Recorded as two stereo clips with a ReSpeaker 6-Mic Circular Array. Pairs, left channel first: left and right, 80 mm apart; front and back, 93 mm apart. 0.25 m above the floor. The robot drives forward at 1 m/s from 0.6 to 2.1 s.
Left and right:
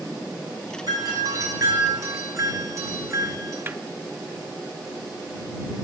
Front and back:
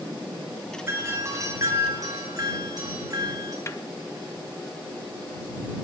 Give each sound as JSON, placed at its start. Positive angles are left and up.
{"t": 0.9, "sound": "a doorbell", "azimuth_deg": -120, "distance_m": 3.5}
{"t": 3.7, "sound": "a snare drum", "azimuth_deg": -40, "distance_m": 0.5}